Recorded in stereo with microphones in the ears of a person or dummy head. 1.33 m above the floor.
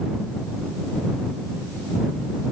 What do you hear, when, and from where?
Only background noise.